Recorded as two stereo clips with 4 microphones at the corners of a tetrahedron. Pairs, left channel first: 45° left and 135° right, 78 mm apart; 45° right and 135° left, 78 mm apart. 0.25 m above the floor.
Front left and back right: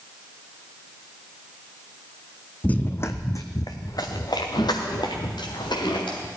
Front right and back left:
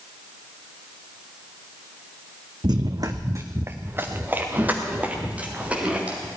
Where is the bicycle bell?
No bicycle bell in this recording.